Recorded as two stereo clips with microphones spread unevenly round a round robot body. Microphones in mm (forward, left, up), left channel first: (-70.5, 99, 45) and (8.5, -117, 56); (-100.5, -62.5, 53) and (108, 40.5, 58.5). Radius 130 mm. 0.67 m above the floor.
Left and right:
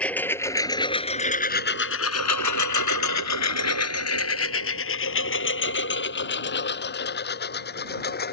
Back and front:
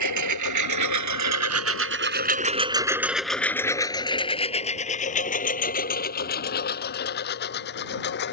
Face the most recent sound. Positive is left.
turn(degrees=160)